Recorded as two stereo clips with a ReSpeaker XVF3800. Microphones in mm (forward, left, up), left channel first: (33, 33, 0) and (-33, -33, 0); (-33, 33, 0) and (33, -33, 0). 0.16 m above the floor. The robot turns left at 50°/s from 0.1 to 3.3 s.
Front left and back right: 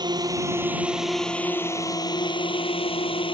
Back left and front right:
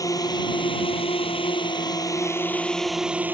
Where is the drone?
175° right; by 3.4 s 25° left.